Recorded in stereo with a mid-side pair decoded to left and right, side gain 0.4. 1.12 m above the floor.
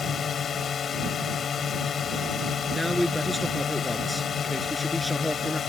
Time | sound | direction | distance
0.0 | a drone | 55° left | ?
2.7 | a man speaking | 5° left | ?